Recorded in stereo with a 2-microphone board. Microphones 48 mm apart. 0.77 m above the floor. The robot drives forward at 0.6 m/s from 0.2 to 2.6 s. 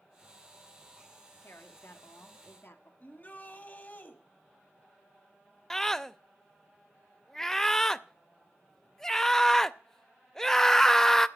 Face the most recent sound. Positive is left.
turn(degrees=10)  # may be behind; listen again after turning